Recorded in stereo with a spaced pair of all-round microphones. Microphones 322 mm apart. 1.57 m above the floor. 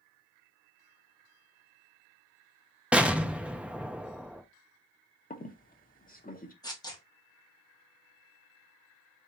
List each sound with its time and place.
2.9 s an explosion: 5° right (ahead or behind), 0.6 m
5.3 s a squeak: 25° left (ahead or behind), 0.8 m
6.6 s tearing paper: 10° left (ahead or behind), 1.4 m